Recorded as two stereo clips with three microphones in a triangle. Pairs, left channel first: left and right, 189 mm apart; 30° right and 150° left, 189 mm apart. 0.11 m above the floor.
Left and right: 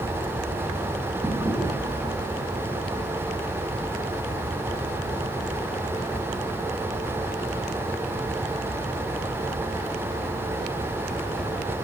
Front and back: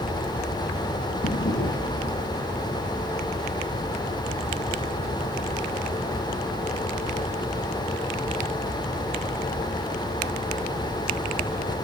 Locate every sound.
1.2 s a drawer: 10° right, 6 m